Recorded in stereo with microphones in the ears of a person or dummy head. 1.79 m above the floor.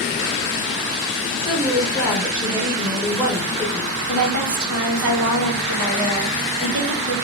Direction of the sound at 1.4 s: 5° right (ahead or behind).